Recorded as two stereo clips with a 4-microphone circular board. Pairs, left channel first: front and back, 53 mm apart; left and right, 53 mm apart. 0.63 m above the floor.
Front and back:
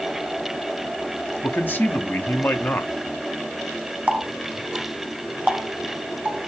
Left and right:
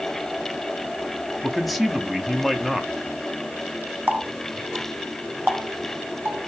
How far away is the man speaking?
About 0.7 m.